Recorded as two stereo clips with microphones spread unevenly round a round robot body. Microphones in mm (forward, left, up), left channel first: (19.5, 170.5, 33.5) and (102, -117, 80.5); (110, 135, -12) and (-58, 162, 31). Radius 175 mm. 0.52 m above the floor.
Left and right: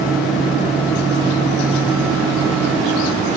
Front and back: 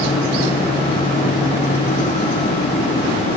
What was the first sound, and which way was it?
Only background noise.